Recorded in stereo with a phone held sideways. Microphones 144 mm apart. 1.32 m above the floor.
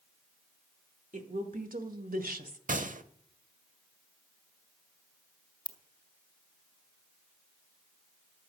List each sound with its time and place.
1.1 s a woman speaking: 60° right (ahead or behind), 1.9 m; by 2.6 s 75° right (ahead or behind), 1.2 m
2.7 s a gunshot: 65° right (ahead or behind), 0.7 m
5.7 s a ringtone: 30° left (ahead or behind), 0.9 m